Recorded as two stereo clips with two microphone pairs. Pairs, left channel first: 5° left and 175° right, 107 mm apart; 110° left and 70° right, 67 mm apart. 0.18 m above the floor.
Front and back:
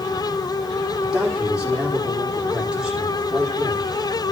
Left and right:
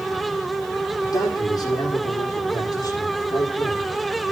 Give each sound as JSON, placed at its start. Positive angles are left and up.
{"t": 1.0, "sound": "a man speaking", "azimuth_deg": 100, "distance_m": 9.0}